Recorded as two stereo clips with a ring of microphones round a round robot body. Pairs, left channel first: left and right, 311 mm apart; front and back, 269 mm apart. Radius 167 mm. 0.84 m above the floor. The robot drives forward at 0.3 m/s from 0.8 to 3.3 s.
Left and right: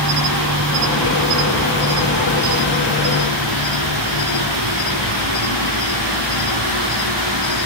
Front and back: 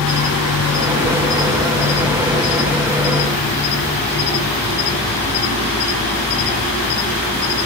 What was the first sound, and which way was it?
An insect, 50° right.